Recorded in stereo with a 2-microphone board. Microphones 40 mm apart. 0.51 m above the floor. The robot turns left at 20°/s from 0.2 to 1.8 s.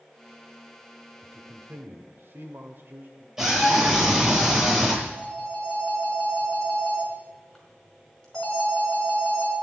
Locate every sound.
1.2 s a man speaking: 60° right (ahead or behind), 1.6 m
3.4 s a scream: 15° right (ahead or behind), 9.5 m
5.0 s a phone ringing: 10° left (ahead or behind), 5 m